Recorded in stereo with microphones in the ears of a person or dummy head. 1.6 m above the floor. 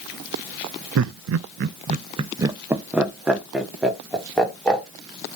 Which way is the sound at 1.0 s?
70° right (ahead or behind).